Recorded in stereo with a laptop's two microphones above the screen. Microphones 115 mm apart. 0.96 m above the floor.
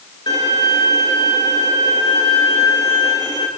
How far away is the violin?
About 5 m.